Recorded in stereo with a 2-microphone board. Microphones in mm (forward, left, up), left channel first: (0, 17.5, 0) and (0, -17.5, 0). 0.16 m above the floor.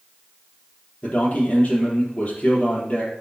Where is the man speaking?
40° left (ahead or behind), 4 m.